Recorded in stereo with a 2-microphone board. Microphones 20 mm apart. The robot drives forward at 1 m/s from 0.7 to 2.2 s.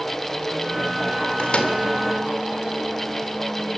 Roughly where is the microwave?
Left.